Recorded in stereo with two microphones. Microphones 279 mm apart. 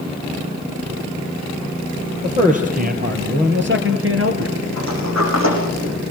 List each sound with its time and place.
2.2 s a man speaking: 25° right (ahead or behind), 5.5 m; by 4.6 s 60° right (ahead or behind), 3 m
4.8 s a sliding door: 70° right (ahead or behind), 9.5 m